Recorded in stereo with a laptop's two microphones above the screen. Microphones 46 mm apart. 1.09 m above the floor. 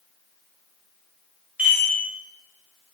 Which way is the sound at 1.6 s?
30° right (ahead or behind).